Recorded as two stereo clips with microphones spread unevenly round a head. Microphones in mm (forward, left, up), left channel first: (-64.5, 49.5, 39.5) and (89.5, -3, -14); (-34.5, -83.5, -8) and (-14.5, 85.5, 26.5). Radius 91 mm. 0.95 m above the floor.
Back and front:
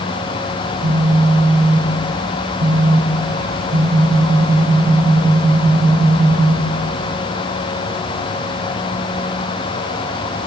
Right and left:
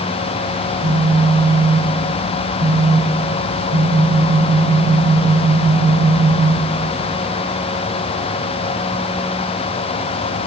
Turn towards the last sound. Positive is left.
turn(degrees=30)